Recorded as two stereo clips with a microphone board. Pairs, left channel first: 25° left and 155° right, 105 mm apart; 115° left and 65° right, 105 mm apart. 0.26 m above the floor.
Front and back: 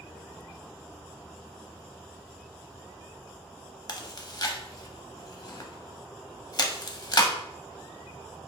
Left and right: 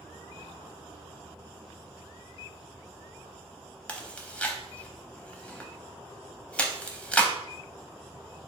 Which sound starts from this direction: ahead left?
Chewing, at 3.9 s.